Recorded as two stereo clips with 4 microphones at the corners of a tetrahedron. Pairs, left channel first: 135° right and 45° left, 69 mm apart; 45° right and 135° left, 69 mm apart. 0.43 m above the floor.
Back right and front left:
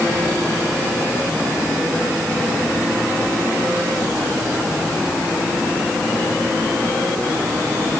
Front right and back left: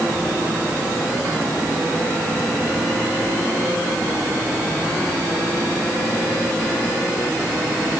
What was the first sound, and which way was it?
Only background noise.